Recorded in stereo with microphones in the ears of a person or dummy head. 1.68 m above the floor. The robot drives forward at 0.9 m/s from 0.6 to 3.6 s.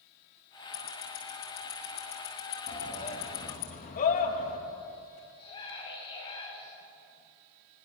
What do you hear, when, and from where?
0.7 s ticking: 55° left (ahead or behind), 8 m; by 3.7 s 70° left (ahead or behind), 6.5 m
2.7 s a shout: 35° left (ahead or behind), 3 m; by 4.6 s 45° left (ahead or behind), 2.5 m
5.4 s a scream: 25° left (ahead or behind), 10 m